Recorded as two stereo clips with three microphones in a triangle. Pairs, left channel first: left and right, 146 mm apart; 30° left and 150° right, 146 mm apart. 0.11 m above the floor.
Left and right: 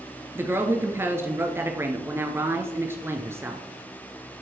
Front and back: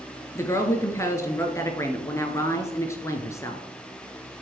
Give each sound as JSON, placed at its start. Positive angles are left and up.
{"t": 0.3, "sound": "a woman speaking", "azimuth_deg": -30, "distance_m": 1.3}